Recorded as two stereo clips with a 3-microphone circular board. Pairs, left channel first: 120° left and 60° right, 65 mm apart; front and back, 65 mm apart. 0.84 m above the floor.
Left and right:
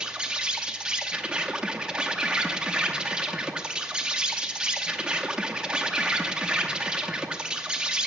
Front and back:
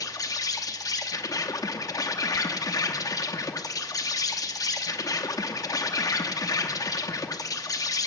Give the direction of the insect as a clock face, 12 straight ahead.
11 o'clock.